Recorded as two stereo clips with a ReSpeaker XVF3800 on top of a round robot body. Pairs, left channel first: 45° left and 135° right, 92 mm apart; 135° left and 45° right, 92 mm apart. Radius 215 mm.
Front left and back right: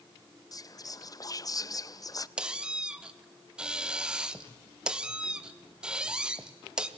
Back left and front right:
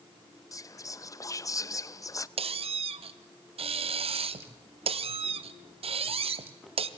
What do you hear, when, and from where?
0.5 s whispering: 90° left, 0.7 m
2.4 s a squeak: 55° right, 0.7 m